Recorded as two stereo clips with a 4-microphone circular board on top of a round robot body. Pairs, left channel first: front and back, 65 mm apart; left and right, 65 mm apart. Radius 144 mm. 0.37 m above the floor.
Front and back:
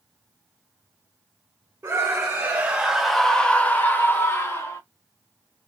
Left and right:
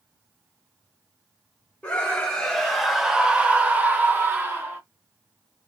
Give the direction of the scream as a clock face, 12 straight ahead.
7 o'clock.